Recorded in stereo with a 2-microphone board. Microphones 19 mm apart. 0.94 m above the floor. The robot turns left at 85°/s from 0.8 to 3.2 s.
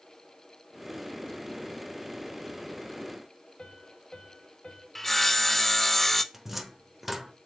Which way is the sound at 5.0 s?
10° left (ahead or behind).